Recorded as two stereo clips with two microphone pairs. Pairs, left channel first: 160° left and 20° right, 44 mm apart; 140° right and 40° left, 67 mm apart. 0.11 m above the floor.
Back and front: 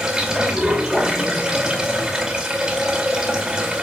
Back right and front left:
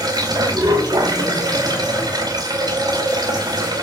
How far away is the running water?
About 2.5 m.